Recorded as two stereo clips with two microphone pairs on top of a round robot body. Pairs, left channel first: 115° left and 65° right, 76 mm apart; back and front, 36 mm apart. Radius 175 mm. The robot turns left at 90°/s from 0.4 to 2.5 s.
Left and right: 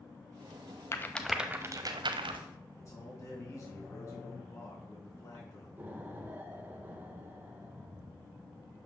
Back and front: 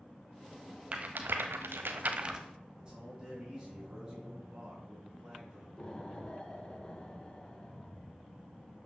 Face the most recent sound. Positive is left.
turn(degrees=-125)